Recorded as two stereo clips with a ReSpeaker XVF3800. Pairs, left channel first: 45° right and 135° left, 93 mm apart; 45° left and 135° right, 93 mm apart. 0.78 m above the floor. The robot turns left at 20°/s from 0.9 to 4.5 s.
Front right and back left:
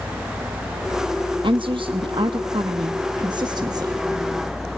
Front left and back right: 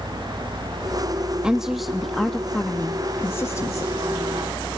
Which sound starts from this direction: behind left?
A woman speaking, at 1.4 s.